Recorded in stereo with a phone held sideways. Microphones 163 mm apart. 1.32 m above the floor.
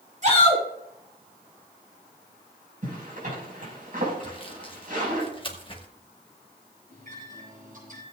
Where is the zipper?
60° right (ahead or behind), 5.5 m.